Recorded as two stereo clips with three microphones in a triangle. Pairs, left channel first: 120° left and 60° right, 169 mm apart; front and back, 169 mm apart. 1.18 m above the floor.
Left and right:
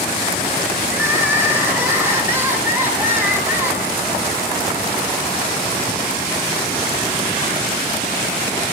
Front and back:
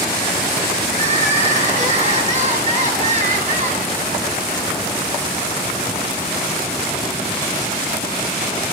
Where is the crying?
140° right, 6 m.